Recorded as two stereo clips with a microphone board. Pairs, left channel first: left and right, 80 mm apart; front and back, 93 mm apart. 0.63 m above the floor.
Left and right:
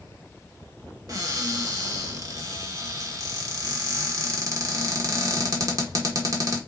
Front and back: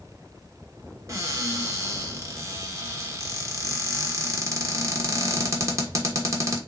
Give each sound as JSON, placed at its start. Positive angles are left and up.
{"t": 1.1, "sound": "a cupboard door", "azimuth_deg": -125, "distance_m": 0.9}